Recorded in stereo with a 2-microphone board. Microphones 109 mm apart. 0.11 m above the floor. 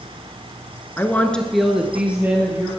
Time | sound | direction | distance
1.0 | a woman speaking | 20° left (ahead or behind) | 1.1 m